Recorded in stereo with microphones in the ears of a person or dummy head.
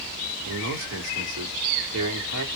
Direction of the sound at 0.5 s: 85° right.